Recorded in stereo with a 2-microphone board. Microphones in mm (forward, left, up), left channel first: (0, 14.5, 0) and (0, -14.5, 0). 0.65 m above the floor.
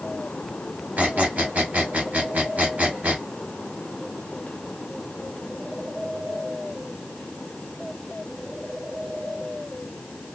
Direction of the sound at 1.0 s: 60° right (ahead or behind).